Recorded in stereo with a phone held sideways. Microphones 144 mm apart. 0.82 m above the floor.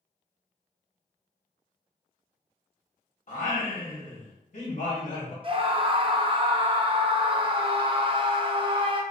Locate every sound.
3.3 s singing: 55° left (ahead or behind), 1.0 m
5.4 s a scream: 35° right (ahead or behind), 0.5 m